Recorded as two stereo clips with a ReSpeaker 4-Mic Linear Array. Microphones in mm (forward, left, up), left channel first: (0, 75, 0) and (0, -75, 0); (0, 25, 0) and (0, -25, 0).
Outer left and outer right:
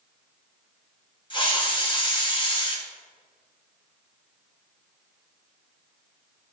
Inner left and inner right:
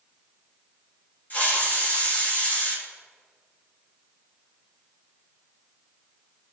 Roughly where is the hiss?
Left.